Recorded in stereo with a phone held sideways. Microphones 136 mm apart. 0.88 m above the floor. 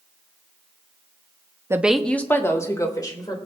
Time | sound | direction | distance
1.7 | a woman speaking | 20° right (ahead or behind) | 0.7 m